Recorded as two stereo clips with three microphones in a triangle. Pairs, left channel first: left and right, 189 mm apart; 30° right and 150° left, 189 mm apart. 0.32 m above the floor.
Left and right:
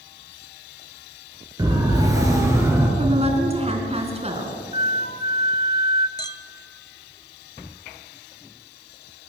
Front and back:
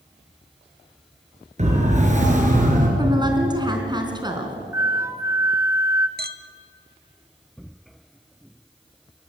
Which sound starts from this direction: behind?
A siren, at 1.6 s.